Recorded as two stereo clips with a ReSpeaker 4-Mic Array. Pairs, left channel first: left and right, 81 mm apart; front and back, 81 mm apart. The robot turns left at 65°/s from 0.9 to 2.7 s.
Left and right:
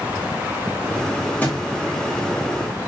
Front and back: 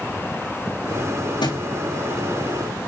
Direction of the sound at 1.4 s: 20° left.